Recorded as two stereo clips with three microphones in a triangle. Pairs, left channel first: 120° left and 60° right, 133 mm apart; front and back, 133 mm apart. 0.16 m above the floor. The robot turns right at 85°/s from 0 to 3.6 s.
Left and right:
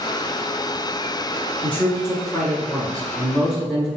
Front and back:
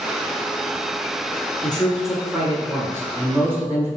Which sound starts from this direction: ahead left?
A man speaking, at 1.6 s.